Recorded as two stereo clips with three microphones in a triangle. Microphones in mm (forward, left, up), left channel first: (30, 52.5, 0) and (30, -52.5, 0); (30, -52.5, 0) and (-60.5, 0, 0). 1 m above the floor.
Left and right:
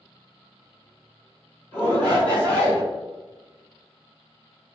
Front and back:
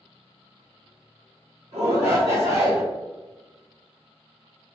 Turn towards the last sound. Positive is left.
turn(degrees=165)